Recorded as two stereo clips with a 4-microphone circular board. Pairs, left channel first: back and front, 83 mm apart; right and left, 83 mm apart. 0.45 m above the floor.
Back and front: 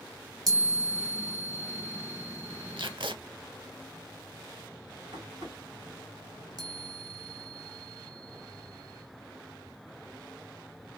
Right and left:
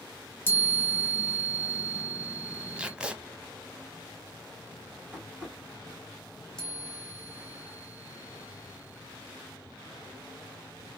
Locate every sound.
0.5 s a chime: 30° right, 1.4 m
2.8 s tape being pulled: 15° left, 0.6 m
5.1 s tapping: 15° left, 2.5 m
6.6 s a chime: 10° right, 1.0 m